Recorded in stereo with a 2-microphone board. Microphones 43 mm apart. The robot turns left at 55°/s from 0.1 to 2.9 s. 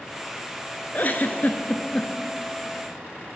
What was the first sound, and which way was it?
A giggle, 45° left (ahead or behind).